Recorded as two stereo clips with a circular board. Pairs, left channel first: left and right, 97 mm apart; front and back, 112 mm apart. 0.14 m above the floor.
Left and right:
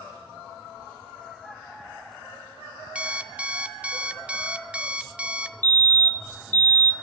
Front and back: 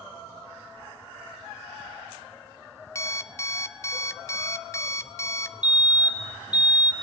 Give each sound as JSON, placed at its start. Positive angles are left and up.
{"t": 3.0, "sound": "an alarm clock", "azimuth_deg": -25, "distance_m": 0.9}
{"t": 5.6, "sound": "a fire alarm", "azimuth_deg": 120, "distance_m": 2.0}